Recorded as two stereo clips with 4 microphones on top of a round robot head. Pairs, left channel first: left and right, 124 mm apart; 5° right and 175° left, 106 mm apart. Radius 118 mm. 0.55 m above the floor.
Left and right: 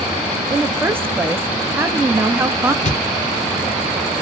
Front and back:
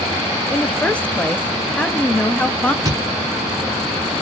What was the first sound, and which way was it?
A woman speaking, 60° right.